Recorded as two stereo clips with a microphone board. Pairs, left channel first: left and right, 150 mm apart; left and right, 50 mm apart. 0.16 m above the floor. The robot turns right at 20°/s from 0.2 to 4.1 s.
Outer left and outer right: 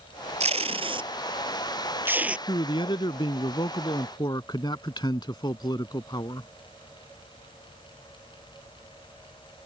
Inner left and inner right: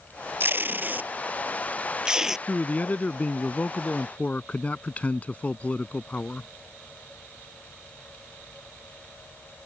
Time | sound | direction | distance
0.4 | tape being pulled | 45° right (ahead or behind) | ?
2.5 | a man speaking | 85° left | ?